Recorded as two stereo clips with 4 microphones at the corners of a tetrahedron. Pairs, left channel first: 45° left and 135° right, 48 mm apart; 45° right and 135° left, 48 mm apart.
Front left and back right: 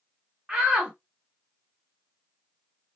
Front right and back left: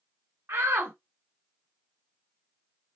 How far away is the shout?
About 0.8 m.